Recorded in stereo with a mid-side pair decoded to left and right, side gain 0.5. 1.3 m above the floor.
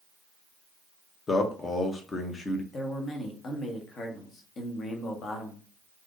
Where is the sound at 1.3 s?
35° left, 0.9 m.